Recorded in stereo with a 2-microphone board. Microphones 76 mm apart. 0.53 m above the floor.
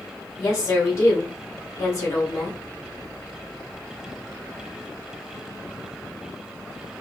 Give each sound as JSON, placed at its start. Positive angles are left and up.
{"t": 0.4, "sound": "a woman speaking", "side_deg": 35, "distance_m": 2.0}